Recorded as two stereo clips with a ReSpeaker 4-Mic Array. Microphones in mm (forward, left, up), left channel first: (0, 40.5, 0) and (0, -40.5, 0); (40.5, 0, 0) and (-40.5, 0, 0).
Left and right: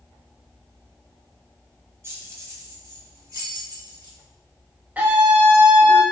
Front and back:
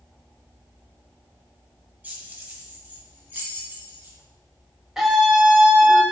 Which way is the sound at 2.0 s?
120° right.